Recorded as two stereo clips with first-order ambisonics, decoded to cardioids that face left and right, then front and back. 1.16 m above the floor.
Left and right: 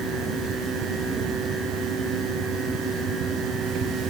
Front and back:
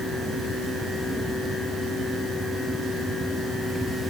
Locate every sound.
Only background noise.